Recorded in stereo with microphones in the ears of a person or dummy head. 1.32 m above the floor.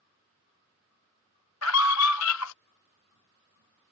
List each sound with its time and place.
1.6 s a scream: 75° left (ahead or behind)